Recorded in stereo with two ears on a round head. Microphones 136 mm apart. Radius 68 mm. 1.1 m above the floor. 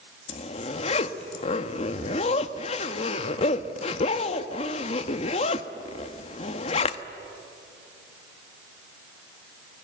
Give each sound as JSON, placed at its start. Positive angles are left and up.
{"t": 0.3, "sound": "a zipper", "side_deg": 45, "distance_m": 1.1}